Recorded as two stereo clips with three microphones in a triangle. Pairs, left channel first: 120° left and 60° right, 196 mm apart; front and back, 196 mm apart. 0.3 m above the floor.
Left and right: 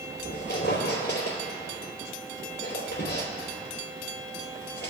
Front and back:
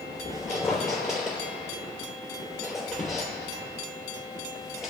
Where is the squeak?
90° left, 3 m.